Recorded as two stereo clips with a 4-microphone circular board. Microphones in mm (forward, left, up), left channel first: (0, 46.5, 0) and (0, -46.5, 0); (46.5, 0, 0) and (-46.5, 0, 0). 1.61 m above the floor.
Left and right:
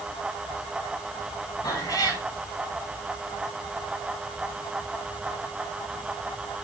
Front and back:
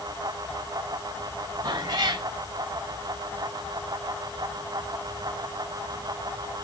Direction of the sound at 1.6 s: 140° left.